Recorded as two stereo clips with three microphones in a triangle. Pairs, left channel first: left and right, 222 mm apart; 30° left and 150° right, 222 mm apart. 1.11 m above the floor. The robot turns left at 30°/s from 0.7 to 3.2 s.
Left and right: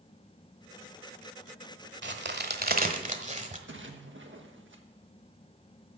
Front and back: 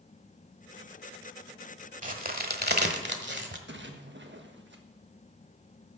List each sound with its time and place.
2.0 s a crack: 105° right, 1.3 m; by 3.6 s 140° right, 1.3 m
3.7 s a splash: 115° right, 1.4 m